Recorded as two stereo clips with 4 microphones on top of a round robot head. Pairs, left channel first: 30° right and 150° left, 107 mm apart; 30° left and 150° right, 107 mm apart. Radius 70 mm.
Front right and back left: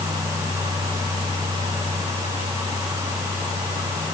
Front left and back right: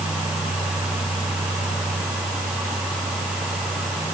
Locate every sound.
Only background noise.